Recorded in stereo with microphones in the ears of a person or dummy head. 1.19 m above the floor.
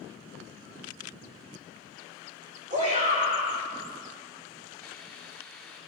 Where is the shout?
40° right (ahead or behind), 7 m.